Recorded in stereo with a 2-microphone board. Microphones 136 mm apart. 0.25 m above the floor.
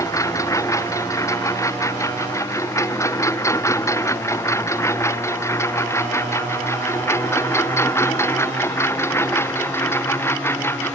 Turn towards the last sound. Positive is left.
turn(degrees=15)  # may be behind; listen again after turning